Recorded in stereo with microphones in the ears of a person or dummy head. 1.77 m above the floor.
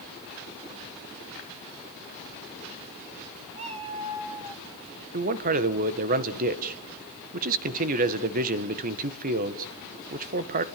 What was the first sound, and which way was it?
A cat meowing, 35° right (ahead or behind).